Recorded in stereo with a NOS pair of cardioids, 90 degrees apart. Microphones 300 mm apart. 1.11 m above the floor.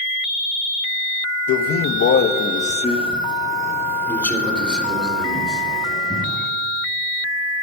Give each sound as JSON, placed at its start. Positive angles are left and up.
{"t": 1.5, "sound": "a man speaking", "azimuth_deg": 70, "distance_m": 1.2}